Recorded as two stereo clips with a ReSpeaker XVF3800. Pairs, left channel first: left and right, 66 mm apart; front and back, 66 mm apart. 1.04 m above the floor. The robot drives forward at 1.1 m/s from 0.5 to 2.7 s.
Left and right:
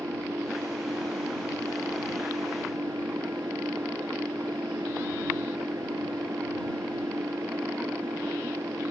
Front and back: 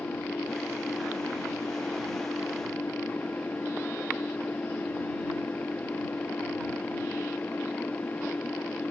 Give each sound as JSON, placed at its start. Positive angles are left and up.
{"t": 0.0, "sound": "an engine running", "azimuth_deg": -50}